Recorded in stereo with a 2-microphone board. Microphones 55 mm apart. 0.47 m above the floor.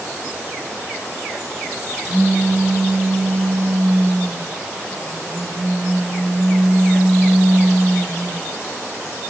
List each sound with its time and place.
2.0 s a pop: 25° right (ahead or behind), 2 m